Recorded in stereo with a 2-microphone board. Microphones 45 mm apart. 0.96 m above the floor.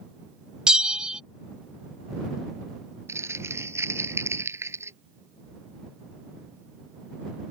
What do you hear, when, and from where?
0.7 s a bell: 15° right (ahead or behind)
3.1 s crumpling: 85° right